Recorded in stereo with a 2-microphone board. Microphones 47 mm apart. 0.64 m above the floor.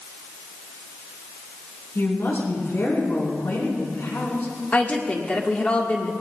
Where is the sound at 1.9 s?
65° left (ahead or behind), 6 m.